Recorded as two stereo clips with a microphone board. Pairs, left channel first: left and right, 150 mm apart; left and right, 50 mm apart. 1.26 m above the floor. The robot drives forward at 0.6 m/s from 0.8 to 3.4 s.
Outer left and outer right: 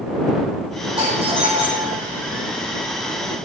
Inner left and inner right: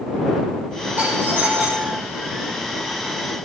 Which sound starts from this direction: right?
A doorbell, at 1.0 s.